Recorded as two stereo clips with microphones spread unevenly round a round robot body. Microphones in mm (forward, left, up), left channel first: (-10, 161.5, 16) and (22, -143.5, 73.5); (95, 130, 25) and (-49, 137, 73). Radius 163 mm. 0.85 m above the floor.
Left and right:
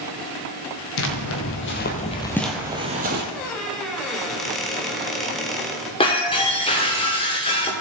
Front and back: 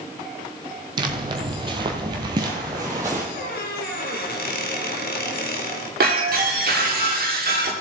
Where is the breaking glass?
170° left, 1.6 m.